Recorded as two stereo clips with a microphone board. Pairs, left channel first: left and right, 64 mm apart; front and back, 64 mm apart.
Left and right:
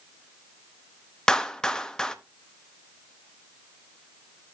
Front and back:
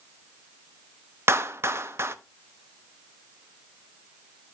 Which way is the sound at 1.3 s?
165° left.